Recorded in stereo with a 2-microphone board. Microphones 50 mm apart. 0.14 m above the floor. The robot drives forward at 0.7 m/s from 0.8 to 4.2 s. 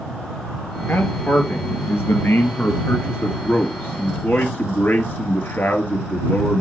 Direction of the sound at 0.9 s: 45° left (ahead or behind).